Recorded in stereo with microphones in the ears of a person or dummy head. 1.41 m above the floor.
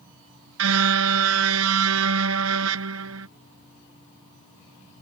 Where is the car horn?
85° right.